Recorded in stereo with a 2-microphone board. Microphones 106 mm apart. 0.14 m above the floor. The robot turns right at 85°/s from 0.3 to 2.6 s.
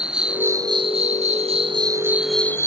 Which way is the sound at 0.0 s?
170° right.